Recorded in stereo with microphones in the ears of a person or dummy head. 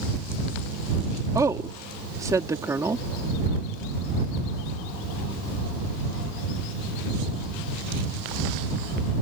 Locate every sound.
1.4 s a woman speaking: 15° right (ahead or behind)